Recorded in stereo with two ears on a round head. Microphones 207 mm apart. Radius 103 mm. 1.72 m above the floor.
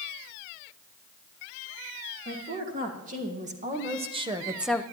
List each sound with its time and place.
2.2 s a woman speaking: 40° right (ahead or behind), 3 m; by 4.8 s 15° left (ahead or behind), 0.5 m